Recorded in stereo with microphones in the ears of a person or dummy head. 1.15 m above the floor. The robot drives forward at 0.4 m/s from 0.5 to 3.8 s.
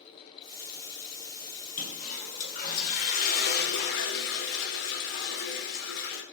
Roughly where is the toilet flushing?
Left.